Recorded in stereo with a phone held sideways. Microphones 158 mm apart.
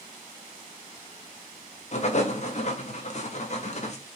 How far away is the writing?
About 0.9 m.